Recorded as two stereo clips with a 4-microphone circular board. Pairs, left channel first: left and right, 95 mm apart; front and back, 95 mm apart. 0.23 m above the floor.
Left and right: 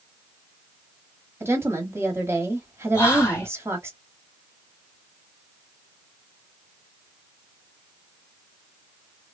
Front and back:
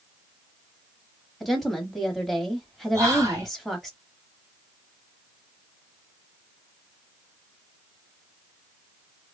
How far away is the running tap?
I don't hear a running tap.